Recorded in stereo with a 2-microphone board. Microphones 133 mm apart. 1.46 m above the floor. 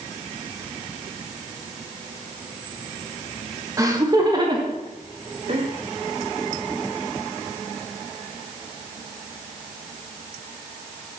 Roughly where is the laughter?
Right.